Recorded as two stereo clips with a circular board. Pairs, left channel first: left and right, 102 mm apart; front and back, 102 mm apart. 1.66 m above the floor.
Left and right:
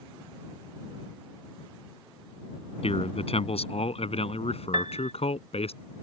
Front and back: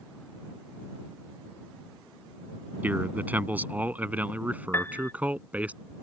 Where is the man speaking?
105° left.